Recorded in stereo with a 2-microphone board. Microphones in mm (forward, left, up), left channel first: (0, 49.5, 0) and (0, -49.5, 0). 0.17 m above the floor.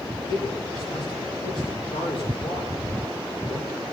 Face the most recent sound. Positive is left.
turn(degrees=55)  # may be behind; listen again after turning